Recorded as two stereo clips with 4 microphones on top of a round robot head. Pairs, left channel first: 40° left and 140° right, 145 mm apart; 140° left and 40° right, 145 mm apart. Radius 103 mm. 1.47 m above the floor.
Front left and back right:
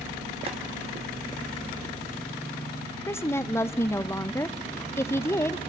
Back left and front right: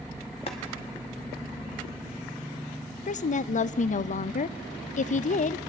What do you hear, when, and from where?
0.5 s boiling: straight behind, 1.0 m
3.1 s a woman speaking: 110° left, 0.5 m